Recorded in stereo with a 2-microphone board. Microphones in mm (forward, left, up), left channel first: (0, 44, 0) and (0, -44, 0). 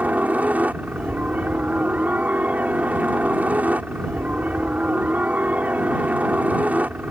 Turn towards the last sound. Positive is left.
turn(degrees=-15)  # may be behind; listen again after turning